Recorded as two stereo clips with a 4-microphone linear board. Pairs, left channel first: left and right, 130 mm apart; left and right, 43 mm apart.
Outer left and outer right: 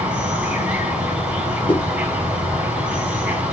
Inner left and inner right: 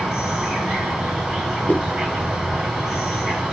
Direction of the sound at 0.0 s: 10° right (ahead or behind).